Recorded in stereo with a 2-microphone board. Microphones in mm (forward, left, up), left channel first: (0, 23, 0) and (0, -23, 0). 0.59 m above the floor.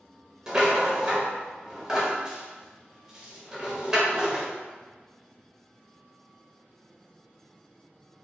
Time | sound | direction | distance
0.5 | a rattle | 15° right (ahead or behind) | 0.6 m